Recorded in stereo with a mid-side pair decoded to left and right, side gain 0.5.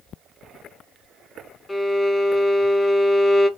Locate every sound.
1.7 s a violin: 20° left, 0.5 m